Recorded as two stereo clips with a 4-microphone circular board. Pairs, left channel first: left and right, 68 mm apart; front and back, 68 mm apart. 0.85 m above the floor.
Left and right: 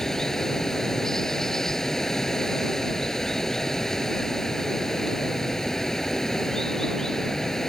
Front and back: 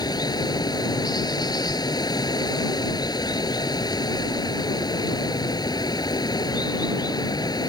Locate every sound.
0.0 s running water: 5° left